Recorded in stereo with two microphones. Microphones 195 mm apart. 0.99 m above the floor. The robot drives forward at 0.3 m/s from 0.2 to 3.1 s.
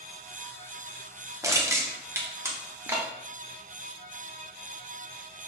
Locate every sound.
1.4 s crushing: 15° right (ahead or behind), 0.8 m; by 3.1 s 10° right (ahead or behind), 1.0 m